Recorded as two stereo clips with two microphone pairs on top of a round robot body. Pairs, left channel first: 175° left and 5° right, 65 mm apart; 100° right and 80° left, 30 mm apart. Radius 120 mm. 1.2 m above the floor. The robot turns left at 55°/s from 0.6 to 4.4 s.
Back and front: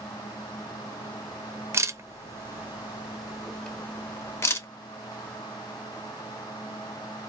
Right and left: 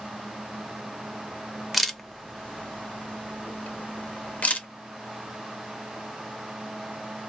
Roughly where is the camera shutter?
Ahead.